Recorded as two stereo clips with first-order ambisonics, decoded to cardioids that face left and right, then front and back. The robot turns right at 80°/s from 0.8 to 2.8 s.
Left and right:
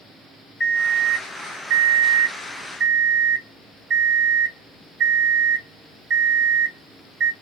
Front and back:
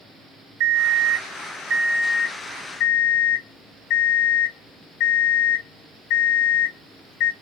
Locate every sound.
0.6 s an alarm clock: 160° left, 1.3 m; by 7.3 s 40° right, 1.3 m